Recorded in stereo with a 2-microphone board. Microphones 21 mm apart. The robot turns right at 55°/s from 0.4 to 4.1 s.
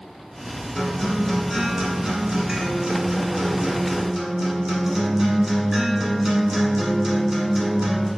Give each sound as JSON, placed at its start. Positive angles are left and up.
{"t": 0.8, "sound": "a guitar", "azimuth_deg": 150, "distance_m": 0.8}